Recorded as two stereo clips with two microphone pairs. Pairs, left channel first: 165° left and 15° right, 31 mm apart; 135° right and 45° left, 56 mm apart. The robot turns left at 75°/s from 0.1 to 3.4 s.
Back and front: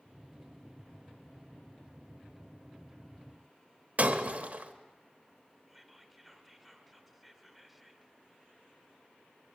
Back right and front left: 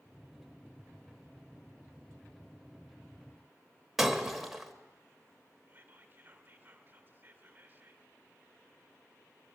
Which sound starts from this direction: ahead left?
Whispering, at 5.7 s.